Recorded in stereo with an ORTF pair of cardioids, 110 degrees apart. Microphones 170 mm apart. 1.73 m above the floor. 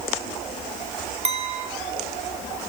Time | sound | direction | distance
1.2 | a clink | 40° right | 3.5 m